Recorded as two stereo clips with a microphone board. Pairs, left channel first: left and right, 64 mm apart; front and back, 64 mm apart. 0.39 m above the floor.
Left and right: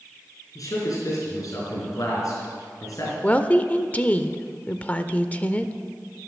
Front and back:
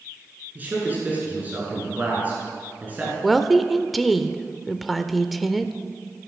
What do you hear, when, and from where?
0.6 s a man speaking: 115° left, 5 m
3.2 s a woman speaking: 90° left, 0.8 m